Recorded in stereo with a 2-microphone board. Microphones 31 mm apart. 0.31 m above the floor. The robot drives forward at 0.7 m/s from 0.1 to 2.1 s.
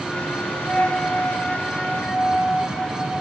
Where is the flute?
40° left (ahead or behind), 1.9 m; by 3.1 s 25° left (ahead or behind), 2.5 m.